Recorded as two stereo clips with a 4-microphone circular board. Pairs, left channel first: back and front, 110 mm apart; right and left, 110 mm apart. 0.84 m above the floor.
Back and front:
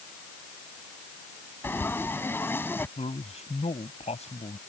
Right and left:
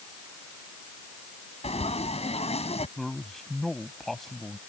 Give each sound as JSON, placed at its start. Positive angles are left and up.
{"t": 1.6, "sound": "frying", "azimuth_deg": -110}
{"t": 3.0, "sound": "a man speaking", "azimuth_deg": -175}